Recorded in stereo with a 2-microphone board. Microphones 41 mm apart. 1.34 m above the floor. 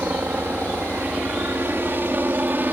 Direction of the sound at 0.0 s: 55° right (ahead or behind).